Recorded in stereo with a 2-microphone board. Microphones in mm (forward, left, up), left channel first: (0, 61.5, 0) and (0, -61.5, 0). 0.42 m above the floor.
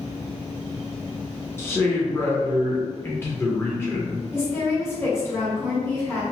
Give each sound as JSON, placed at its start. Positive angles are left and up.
{"t": 1.6, "sound": "a man speaking", "side_deg": 20, "distance_m": 0.7}
{"t": 4.3, "sound": "a woman speaking", "side_deg": 20, "distance_m": 1.2}